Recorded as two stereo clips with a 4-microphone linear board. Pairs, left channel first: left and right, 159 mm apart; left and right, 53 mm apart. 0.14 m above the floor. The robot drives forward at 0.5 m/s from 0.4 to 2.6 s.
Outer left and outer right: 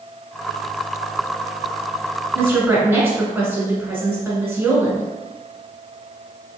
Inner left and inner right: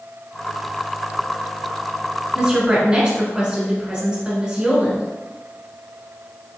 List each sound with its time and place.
2.3 s a woman speaking: 15° right (ahead or behind), 1.3 m